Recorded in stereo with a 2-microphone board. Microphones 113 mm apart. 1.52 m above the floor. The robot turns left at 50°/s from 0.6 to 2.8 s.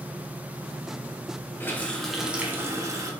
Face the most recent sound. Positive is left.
turn(degrees=-35)